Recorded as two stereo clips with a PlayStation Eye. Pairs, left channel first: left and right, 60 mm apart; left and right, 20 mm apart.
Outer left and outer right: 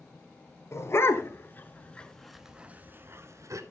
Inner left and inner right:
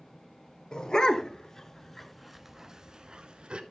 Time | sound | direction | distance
0.7 | a dog barking | 45° left (ahead or behind) | 1.3 m